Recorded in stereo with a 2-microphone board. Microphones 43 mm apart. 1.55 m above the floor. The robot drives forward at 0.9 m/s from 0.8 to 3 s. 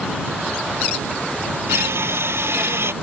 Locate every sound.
1.7 s crushing: 75° right (ahead or behind); by 2.9 s 70° right (ahead or behind)